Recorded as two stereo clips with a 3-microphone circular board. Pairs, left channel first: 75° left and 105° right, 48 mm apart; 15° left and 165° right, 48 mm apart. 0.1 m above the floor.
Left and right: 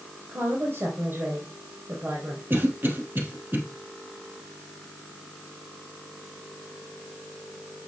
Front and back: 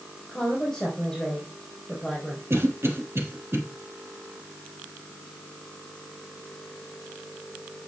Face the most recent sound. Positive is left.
turn(degrees=-145)